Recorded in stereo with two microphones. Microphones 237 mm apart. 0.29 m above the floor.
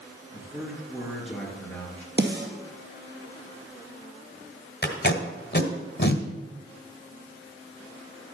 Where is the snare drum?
45° right (ahead or behind), 2.5 m.